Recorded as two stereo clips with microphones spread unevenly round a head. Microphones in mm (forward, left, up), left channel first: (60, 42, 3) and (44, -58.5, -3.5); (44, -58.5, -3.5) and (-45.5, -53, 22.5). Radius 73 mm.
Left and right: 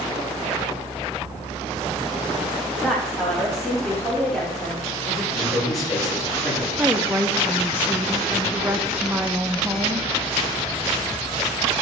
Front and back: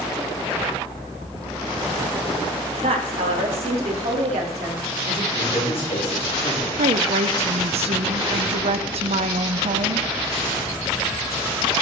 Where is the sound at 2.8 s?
170° left, 1.9 m.